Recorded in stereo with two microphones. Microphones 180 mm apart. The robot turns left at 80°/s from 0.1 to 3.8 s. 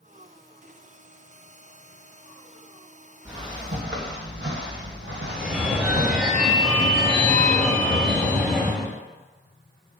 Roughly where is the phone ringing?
Centre.